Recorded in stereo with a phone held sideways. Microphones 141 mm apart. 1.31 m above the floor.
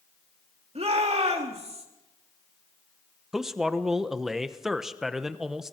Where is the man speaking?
5° right (ahead or behind), 1.0 m.